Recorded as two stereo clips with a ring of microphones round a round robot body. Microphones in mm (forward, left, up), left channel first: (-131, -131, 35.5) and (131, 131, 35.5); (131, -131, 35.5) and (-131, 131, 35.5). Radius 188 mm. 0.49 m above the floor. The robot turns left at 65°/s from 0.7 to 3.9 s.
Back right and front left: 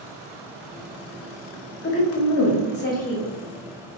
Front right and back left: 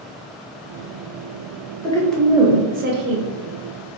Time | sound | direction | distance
1.8 | a woman speaking | 115° right | 0.8 m